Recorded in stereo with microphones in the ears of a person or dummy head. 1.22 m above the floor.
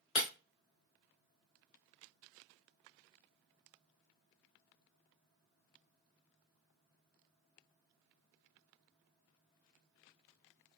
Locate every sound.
0.1 s breaking glass: 30° left (ahead or behind), 1.3 m